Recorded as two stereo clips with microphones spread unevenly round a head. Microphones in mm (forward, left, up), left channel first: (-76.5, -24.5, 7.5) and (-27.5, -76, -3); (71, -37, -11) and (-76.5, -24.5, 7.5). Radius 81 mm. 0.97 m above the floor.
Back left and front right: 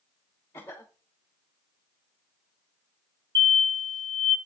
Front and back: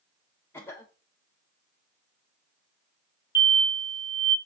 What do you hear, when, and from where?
0.5 s a cough: 65° left, 1.1 m
3.4 s an explosion: 70° right, 3 m